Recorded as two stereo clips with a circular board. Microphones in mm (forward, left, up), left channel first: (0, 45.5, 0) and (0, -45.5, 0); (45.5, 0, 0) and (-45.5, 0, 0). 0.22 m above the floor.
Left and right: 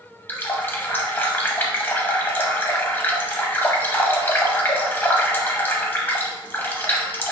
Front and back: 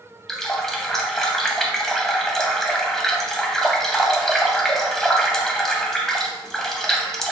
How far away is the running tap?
About 0.6 m.